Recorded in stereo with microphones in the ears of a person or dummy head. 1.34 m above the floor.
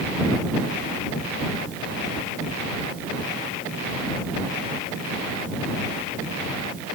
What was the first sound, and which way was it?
Only background noise.